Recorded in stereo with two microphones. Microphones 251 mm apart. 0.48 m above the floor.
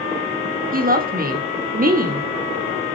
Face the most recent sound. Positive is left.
turn(degrees=-35)  # may be behind; listen again after turning